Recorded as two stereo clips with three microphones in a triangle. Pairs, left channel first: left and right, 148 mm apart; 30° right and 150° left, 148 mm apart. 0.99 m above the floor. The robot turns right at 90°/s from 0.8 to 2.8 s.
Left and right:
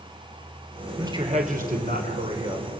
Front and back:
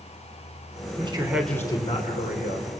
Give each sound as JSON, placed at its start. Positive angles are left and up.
{"t": 1.0, "sound": "a man speaking", "azimuth_deg": -160, "distance_m": 4.0}